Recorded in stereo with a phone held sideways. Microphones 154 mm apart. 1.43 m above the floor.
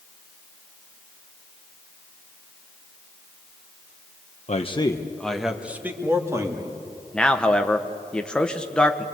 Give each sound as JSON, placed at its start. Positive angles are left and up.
{"t": 4.5, "sound": "a man speaking", "side_deg": 50, "distance_m": 1.0}
{"t": 7.1, "sound": "a man speaking", "side_deg": 5, "distance_m": 1.3}